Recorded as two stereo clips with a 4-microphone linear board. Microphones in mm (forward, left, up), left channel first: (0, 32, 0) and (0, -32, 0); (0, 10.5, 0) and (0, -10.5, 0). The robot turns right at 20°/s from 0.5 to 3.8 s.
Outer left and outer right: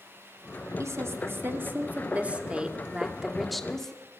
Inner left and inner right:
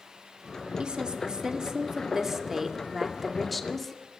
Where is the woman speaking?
50° right, 2.5 m; by 4.2 s 10° left, 2.5 m.